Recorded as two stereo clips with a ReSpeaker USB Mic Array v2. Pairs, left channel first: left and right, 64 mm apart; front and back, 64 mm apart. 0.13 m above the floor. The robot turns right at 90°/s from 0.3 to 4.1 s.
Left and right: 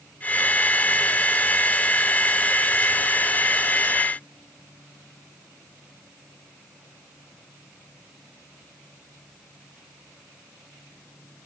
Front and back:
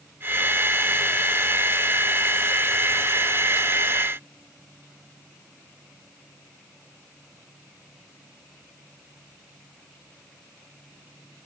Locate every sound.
Only background noise.